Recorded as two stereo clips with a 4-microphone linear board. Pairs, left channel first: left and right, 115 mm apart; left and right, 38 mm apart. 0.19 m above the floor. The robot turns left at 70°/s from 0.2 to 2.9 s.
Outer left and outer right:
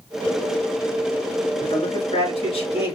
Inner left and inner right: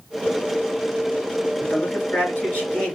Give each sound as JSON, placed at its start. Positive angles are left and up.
{"t": 1.6, "sound": "a man speaking", "azimuth_deg": 130, "distance_m": 3.0}